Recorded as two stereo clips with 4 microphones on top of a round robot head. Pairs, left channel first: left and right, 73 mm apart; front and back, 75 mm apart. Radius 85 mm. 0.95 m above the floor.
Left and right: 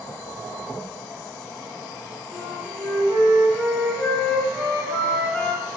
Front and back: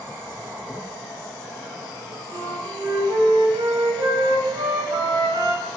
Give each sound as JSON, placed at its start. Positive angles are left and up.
{"t": 2.3, "sound": "a flute", "azimuth_deg": 175, "distance_m": 1.5}